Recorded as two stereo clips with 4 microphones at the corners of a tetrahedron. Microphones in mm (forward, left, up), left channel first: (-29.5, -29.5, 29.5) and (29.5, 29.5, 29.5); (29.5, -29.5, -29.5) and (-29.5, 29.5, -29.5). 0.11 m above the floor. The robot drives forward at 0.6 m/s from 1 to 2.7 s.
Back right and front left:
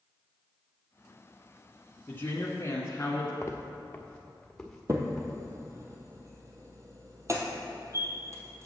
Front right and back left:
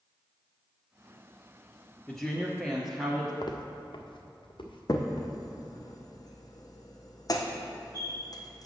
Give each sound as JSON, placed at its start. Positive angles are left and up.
{"t": 2.1, "sound": "a woman speaking", "azimuth_deg": -120, "distance_m": 1.2}
{"t": 3.4, "sound": "footsteps", "azimuth_deg": -75, "distance_m": 1.0}
{"t": 4.9, "sound": "a crack", "azimuth_deg": -5, "distance_m": 1.1}